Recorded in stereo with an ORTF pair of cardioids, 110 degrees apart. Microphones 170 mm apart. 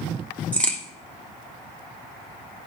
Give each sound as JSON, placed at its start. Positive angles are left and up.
{"t": 0.5, "sound": "a crack", "azimuth_deg": 5, "distance_m": 1.3}